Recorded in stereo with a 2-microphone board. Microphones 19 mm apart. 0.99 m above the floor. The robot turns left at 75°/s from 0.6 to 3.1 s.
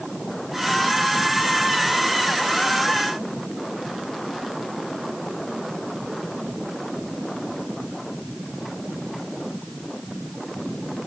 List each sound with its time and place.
Only background noise.